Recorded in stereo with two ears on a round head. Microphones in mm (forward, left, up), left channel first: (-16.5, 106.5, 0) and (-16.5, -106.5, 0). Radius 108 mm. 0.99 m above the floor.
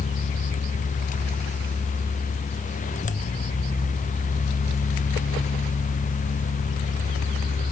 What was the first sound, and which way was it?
Only background noise.